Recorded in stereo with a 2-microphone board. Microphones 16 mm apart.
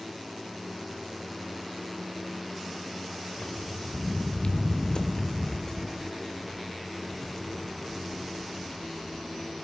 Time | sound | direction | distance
3.4 | footsteps | 85° left | 1.5 m